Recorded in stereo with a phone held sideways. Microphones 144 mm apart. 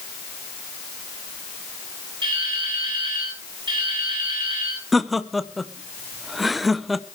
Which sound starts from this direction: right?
Dripping, at 2.2 s.